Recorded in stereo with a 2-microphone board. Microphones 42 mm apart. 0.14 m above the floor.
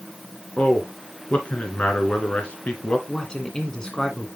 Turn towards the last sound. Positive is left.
turn(degrees=20)  # may be behind; listen again after turning